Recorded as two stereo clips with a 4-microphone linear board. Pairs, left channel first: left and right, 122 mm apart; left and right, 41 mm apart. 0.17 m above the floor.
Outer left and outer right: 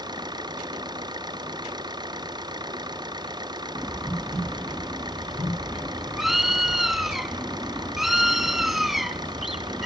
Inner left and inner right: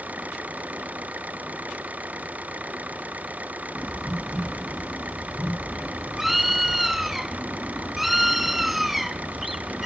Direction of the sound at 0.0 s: 35° right (ahead or behind).